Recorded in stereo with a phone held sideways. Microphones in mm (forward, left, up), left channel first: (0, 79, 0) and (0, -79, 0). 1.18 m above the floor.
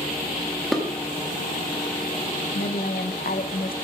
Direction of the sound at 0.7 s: Centre (ahead or behind).